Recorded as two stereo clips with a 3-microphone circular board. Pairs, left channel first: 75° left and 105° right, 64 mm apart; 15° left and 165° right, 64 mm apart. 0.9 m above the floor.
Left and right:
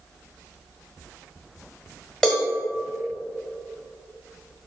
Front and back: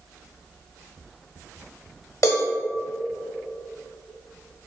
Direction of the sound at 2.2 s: 10° right.